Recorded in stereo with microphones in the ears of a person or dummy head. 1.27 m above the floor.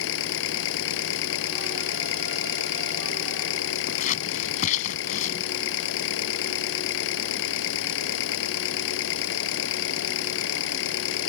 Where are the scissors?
45° left (ahead or behind).